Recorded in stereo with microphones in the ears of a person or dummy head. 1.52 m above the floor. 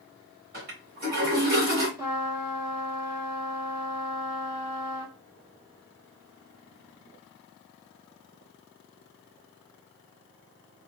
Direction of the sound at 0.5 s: 45° right (ahead or behind).